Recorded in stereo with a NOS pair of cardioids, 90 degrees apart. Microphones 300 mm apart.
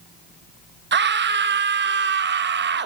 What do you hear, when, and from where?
0.9 s a scream: 35° right, 1.0 m